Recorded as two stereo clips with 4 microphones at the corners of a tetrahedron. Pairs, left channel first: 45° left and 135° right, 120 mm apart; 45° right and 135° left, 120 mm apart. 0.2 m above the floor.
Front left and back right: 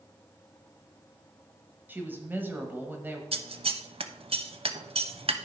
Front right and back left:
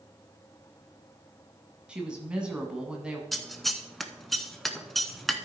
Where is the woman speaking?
165° right, 1.3 m.